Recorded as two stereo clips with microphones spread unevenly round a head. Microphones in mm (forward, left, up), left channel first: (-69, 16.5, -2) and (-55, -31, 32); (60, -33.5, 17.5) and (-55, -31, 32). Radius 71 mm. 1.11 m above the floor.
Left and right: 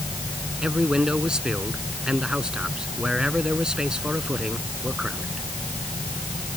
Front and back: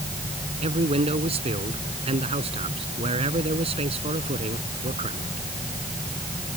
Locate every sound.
0.6 s a man speaking: 145° right